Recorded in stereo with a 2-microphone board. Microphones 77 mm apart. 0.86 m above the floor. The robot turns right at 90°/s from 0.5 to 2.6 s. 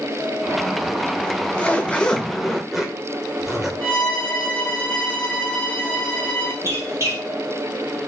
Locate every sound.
1.2 s a zipper: 20° left (ahead or behind), 0.5 m; by 3.7 s 5° right (ahead or behind), 0.5 m
3.8 s a violin: 20° left (ahead or behind), 0.9 m
6.6 s a squeak: 40° right (ahead or behind), 0.9 m